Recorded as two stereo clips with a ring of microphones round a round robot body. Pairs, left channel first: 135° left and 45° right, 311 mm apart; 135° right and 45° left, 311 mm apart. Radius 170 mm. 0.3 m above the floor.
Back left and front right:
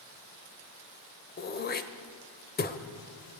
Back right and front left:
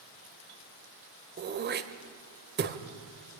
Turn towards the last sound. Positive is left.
turn(degrees=90)